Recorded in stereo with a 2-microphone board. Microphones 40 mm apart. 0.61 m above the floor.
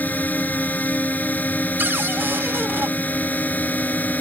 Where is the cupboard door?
65° right (ahead or behind).